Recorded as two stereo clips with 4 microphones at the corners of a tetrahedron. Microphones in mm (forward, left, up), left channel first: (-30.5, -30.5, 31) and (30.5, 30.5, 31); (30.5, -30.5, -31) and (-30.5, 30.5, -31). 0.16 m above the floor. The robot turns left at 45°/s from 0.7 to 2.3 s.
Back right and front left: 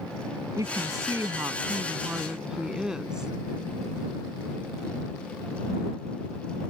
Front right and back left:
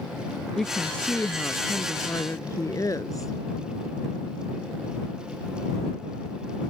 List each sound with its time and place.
0.6 s a woman speaking: 40° left; by 3.3 s 35° right